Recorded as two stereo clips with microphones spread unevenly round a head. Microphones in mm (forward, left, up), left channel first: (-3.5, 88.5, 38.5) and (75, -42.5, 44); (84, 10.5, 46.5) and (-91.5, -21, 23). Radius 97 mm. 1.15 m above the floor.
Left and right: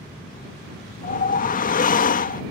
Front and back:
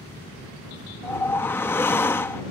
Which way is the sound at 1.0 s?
90° left.